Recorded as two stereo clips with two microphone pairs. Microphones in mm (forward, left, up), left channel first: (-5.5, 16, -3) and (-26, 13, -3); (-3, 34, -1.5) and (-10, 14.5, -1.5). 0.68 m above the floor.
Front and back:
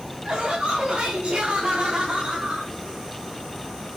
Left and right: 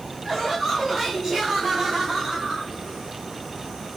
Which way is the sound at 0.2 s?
160° left.